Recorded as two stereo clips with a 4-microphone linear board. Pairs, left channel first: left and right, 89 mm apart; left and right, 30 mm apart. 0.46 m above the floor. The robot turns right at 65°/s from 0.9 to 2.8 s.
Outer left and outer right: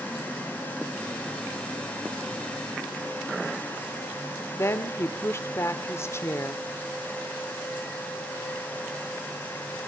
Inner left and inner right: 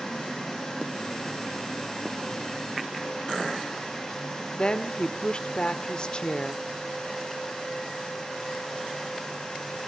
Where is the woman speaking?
35° left (ahead or behind), 1.3 m.